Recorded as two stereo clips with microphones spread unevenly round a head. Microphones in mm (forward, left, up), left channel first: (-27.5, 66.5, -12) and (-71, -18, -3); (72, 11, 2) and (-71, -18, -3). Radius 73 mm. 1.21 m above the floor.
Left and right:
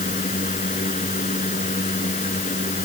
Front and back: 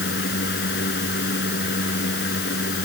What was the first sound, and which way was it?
A fan, 35° left.